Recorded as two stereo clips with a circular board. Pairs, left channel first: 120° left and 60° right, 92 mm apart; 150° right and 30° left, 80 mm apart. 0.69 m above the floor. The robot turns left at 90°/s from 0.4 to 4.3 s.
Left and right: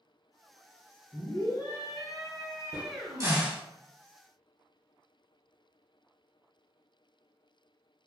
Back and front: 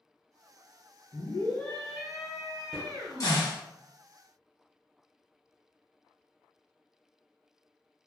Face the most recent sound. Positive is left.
turn(degrees=150)